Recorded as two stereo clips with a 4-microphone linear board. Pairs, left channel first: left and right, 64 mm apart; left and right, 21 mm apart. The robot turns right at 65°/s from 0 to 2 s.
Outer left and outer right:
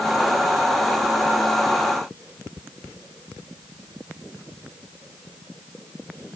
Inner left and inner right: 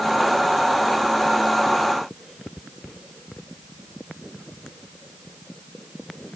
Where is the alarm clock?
I don't hear an alarm clock.